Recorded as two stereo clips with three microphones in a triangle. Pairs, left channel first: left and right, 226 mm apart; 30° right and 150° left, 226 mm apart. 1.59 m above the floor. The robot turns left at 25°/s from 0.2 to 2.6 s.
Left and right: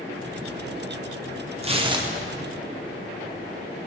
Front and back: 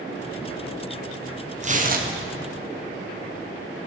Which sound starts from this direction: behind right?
Tearing paper, at 1.6 s.